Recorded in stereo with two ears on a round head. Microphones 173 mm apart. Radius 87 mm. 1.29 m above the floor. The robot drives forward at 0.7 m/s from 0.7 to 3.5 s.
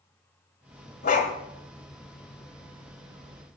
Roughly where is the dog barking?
Left.